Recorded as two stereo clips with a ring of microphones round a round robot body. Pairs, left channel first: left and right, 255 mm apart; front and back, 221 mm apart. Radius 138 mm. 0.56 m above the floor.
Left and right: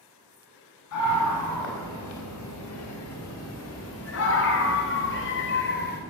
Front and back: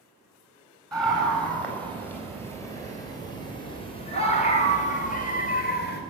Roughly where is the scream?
Left.